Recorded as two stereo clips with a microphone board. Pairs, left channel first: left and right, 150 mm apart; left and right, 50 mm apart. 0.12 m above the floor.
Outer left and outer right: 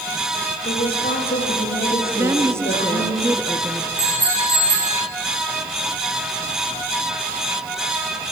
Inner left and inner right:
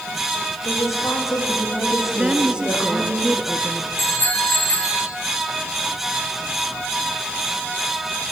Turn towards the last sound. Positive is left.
turn(degrees=50)  # may be behind; listen again after turning